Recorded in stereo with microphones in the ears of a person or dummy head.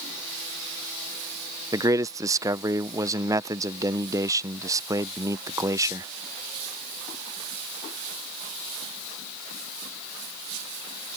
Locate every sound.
1.7 s a man speaking: 10° right (ahead or behind)